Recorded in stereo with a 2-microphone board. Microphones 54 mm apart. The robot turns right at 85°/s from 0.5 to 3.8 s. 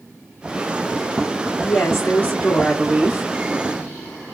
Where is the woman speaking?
70° left, 1.5 m; by 3.3 s 140° right, 1.5 m.